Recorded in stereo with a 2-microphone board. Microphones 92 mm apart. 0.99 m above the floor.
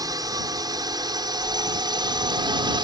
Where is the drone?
45° right (ahead or behind); by 2.8 s 55° right (ahead or behind).